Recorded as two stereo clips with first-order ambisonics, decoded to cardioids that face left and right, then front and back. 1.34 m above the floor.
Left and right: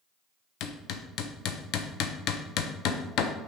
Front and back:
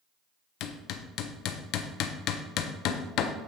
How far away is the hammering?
About 0.7 m.